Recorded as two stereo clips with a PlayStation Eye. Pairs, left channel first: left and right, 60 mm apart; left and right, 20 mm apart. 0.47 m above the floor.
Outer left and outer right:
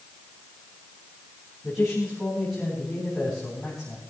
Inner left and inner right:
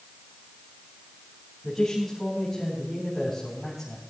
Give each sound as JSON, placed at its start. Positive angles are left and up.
{"t": 1.6, "sound": "a man speaking", "side_deg": 0, "distance_m": 4.0}